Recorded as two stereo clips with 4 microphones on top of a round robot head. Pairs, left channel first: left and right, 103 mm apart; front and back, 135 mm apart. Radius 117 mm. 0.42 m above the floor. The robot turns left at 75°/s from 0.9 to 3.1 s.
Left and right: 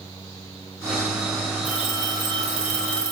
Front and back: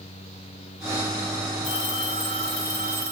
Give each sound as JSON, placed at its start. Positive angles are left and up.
{"t": 1.6, "sound": "a phone ringing", "azimuth_deg": -10, "distance_m": 1.7}